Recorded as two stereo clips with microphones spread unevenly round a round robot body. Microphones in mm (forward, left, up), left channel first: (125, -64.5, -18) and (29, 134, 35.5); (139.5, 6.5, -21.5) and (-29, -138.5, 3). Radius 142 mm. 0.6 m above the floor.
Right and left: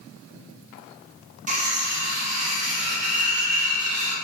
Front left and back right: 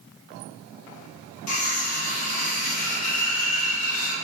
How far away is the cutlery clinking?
About 0.8 m.